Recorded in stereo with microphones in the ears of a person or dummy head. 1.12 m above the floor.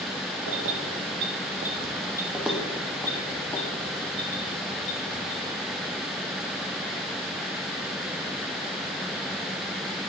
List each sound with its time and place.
0.5 s keys jangling: 75° right (ahead or behind), 0.9 m; by 5.3 s 30° left (ahead or behind), 2.5 m